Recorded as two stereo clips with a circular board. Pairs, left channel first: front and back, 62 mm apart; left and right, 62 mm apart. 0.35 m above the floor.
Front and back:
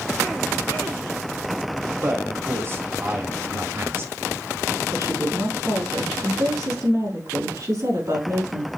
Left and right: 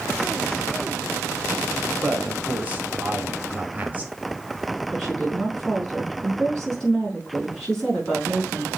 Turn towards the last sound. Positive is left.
turn(degrees=175)